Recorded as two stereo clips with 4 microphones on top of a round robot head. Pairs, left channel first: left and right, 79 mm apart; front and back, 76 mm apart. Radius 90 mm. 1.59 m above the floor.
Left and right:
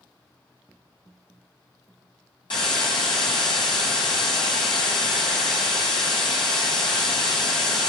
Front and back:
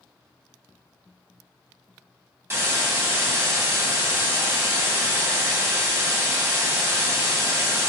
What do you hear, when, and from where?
2.5 s a hiss: 135° left, 1.8 m